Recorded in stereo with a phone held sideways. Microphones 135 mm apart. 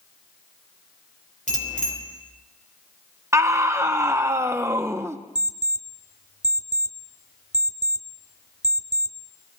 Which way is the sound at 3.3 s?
20° right (ahead or behind).